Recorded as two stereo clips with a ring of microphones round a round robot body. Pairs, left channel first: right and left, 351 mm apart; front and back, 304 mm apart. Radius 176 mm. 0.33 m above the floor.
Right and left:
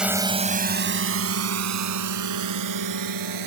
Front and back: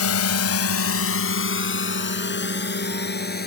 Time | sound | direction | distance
0.0 | a drone | 5° left | ?